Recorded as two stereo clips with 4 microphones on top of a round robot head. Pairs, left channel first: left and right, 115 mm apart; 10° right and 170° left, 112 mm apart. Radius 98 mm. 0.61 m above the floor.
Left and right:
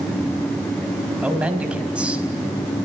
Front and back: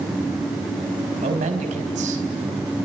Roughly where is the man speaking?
Behind.